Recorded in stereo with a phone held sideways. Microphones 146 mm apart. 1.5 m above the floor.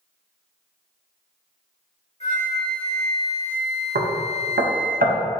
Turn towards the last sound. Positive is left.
turn(degrees=-85)